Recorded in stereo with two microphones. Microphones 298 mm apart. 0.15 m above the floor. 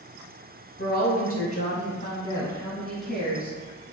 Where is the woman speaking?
35° left (ahead or behind), 1.4 m; by 3.6 s 10° right (ahead or behind), 1.3 m.